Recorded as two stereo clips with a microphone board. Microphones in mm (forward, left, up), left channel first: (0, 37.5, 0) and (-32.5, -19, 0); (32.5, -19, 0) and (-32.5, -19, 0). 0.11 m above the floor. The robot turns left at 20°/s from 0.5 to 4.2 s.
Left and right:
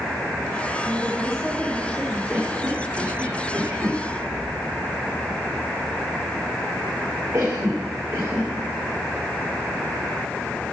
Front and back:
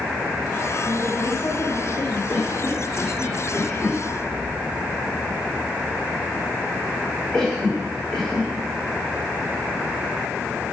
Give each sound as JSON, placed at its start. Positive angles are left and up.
{"t": 0.8, "sound": "a woman speaking", "azimuth_deg": -25, "distance_m": 6.5}
{"t": 2.3, "sound": "a cough", "azimuth_deg": -50, "distance_m": 6.0}